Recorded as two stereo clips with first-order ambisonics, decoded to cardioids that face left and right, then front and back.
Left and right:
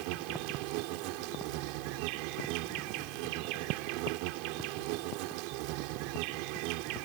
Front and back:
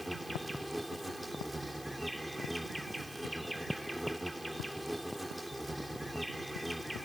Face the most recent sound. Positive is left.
turn(degrees=-95)